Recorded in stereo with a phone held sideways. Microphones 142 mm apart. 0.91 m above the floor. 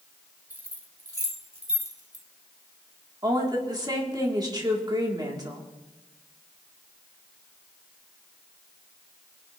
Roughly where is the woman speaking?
Right.